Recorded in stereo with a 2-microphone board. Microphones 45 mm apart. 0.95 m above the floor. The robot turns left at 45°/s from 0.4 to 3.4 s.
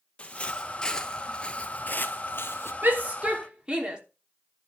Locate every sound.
0.2 s footsteps: 25° left (ahead or behind), 1.5 m; by 2.7 s 60° left (ahead or behind), 1.7 m
2.8 s a shout: 45° right (ahead or behind), 3 m; by 4.0 s 20° right (ahead or behind), 3 m